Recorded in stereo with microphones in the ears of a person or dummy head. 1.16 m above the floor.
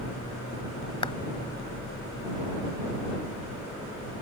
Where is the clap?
30° left (ahead or behind).